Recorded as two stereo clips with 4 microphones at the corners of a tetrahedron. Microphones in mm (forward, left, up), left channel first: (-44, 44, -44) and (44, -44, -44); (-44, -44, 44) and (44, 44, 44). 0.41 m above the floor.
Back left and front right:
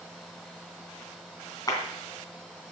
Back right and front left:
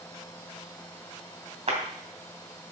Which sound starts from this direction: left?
A clap, at 1.7 s.